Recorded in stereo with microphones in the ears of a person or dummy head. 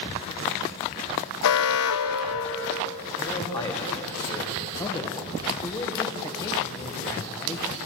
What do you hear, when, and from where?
1.4 s an alarm: 70° left (ahead or behind), 1.6 m
3.2 s a man speaking: 25° left (ahead or behind), 3.5 m
4.8 s a man speaking: 20° left (ahead or behind), 1.6 m